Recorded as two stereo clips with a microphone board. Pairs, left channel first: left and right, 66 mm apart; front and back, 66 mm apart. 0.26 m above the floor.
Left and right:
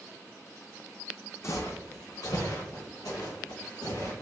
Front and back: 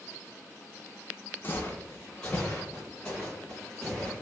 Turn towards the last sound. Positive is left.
turn(degrees=85)